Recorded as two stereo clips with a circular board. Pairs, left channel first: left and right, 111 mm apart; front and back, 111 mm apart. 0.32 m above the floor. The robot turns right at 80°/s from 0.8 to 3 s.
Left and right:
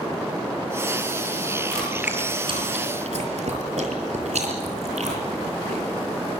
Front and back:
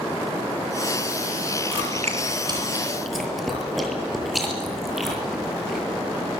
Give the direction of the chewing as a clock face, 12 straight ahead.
7 o'clock.